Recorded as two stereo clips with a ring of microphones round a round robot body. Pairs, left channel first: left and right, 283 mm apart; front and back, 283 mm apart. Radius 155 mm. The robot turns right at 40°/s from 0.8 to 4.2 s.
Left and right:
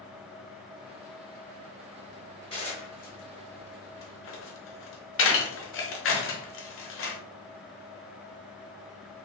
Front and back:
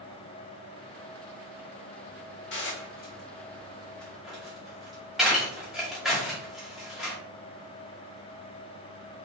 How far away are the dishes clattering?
About 0.8 m.